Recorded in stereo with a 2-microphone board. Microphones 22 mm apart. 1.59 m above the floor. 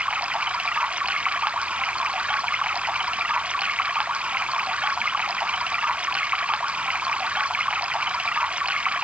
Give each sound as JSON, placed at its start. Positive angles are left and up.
{"t": 0.0, "sound": "running water", "side_deg": -80}